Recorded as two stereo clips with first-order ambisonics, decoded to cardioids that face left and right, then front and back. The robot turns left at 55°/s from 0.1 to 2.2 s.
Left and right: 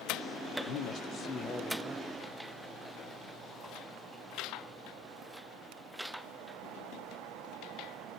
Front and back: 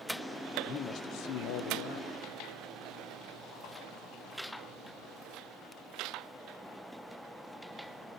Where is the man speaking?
70° left, 0.7 m; by 2.1 s 20° right, 0.7 m.